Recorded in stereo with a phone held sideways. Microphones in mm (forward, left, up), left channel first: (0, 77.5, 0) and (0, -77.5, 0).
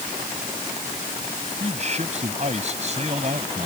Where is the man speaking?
45° right (ahead or behind).